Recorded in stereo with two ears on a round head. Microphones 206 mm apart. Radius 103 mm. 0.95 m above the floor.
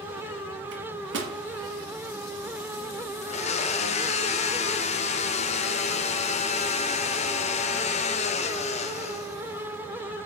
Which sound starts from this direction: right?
A microwave, at 0.7 s.